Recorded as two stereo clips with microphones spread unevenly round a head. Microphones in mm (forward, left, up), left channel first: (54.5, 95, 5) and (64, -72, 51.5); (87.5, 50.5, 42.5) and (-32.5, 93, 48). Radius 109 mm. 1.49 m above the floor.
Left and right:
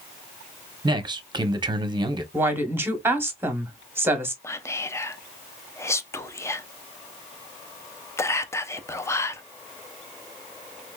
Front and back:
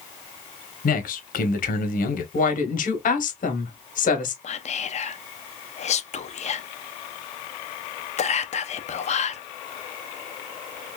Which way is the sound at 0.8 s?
20° right.